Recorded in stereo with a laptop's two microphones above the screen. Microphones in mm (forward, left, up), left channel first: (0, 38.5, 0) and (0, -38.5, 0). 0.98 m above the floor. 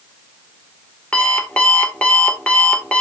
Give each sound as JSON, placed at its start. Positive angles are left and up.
{"t": 1.1, "sound": "an alarm clock", "side_deg": 15, "distance_m": 1.7}